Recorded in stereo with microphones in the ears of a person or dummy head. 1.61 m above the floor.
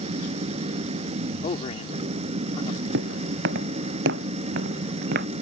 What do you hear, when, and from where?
0.0 s an engine running: 40° right (ahead or behind)
1.4 s a man speaking: 35° left (ahead or behind)
2.9 s footsteps: 70° right (ahead or behind); by 5.3 s 65° right (ahead or behind)